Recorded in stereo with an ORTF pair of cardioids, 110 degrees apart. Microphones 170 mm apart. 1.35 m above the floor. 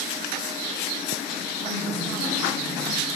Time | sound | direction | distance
1.6 | a woman speaking | 70° left | 2.5 m